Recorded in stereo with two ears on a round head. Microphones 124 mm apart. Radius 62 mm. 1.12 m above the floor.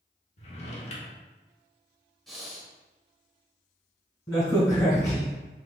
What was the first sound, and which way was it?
A drawer, 45° left (ahead or behind).